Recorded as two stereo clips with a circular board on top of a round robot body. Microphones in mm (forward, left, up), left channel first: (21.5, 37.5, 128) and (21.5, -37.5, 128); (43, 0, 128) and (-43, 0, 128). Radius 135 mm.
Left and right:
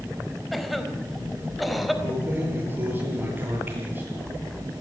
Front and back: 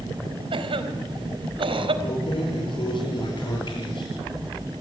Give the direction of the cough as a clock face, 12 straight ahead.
6 o'clock.